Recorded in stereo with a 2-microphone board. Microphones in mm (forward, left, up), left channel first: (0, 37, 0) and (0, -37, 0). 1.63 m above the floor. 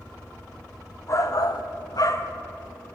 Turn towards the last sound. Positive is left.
turn(degrees=35)  # may be behind; listen again after turning